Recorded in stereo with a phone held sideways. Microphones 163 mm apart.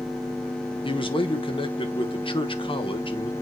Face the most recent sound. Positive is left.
turn(degrees=30)  # may be behind; listen again after turning